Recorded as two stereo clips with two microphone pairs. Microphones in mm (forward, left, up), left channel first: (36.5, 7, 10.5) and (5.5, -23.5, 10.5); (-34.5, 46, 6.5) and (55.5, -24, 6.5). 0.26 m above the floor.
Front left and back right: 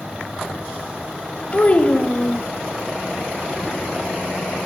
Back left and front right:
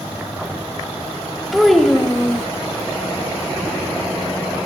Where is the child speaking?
50° left, 0.8 m.